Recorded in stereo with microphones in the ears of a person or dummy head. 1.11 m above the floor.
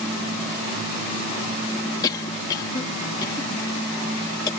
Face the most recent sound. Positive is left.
turn(degrees=20)  # may be behind; listen again after turning